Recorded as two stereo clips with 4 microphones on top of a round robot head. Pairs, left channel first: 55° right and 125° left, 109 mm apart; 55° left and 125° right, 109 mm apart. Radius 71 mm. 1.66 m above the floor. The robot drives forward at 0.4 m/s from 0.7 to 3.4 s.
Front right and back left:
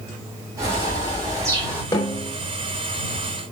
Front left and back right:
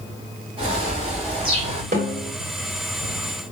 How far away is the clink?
No clink in this recording.